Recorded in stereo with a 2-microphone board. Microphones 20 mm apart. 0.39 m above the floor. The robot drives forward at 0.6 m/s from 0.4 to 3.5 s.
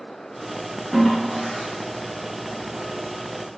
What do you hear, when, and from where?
0.9 s a toilet flushing: 5° left (ahead or behind), 0.6 m; by 3.6 s centre (ahead or behind), 1.8 m